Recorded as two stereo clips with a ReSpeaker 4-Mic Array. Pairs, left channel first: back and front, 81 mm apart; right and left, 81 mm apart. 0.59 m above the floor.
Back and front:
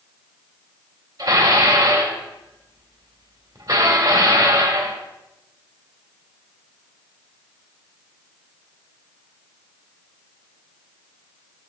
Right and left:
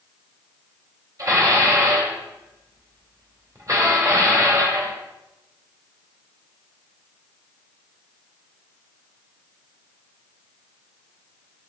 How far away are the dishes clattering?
About 1.6 m.